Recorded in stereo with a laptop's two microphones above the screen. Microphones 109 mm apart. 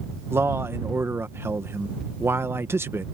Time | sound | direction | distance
0.3 | a man speaking | 20° right (ahead or behind) | ?